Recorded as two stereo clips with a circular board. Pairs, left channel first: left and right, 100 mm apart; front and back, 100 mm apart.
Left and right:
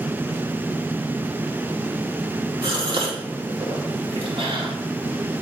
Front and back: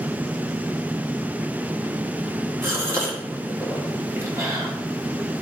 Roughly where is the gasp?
Behind right.